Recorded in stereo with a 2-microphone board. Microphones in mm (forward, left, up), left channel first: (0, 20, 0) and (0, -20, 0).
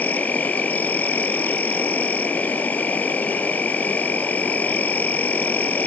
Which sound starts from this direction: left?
An insect, at 0.0 s.